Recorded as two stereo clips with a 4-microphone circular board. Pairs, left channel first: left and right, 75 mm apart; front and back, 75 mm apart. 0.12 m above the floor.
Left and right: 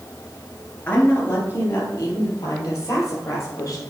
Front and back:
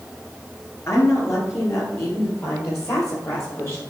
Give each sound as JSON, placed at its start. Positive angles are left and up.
{"t": 0.9, "sound": "a woman speaking", "azimuth_deg": 30, "distance_m": 2.5}